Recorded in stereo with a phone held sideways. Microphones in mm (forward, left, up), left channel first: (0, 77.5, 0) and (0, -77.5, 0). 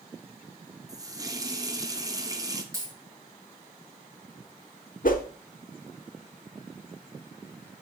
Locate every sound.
0.9 s a running tap: 25° right (ahead or behind), 0.7 m
2.7 s a dropped coin: 20° right (ahead or behind), 6 m
5.0 s a whoosh: 65° left (ahead or behind), 1.0 m